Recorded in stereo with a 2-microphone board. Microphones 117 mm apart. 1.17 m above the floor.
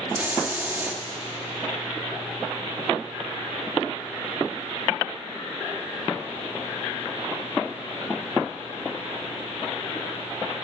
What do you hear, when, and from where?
0.1 s a hiss: 15° right (ahead or behind), 2 m